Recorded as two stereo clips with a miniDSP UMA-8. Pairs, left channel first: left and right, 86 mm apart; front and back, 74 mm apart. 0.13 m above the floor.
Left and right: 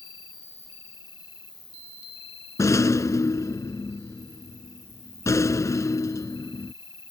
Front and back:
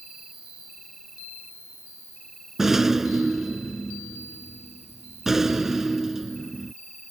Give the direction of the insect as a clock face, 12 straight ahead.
9 o'clock.